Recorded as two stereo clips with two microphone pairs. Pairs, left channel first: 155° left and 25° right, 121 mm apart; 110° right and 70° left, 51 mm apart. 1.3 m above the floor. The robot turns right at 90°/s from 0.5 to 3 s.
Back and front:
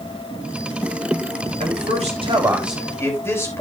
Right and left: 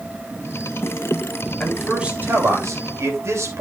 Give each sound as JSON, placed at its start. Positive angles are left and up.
{"t": 1.6, "sound": "a man speaking", "azimuth_deg": -40, "distance_m": 3.0}